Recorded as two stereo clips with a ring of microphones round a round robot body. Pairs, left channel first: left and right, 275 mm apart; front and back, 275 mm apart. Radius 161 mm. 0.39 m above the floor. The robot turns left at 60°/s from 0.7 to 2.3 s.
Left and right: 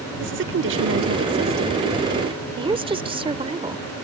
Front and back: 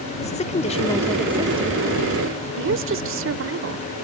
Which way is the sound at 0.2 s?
60° right.